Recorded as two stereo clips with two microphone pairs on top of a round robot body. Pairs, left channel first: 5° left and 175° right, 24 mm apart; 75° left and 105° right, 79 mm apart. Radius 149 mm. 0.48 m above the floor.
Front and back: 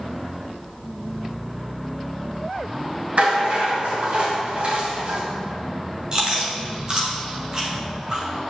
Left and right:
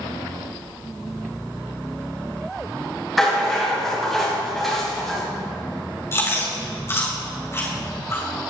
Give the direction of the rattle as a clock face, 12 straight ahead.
6 o'clock.